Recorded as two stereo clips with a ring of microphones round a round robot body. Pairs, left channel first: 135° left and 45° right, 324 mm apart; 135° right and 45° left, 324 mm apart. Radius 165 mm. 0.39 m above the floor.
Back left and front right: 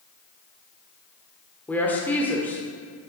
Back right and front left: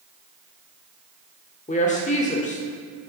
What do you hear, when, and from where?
1.7 s a woman speaking: 150° right, 1.2 m